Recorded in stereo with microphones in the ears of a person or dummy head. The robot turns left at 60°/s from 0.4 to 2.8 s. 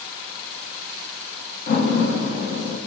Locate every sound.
1.7 s a door slam: 125° left, 0.9 m; by 2.8 s 55° left, 0.9 m